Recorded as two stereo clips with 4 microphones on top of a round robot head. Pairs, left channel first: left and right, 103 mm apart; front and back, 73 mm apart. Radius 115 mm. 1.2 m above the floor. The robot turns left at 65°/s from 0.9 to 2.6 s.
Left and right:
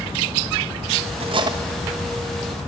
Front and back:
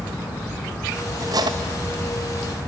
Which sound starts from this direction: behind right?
Cutlery clinking, at 1.2 s.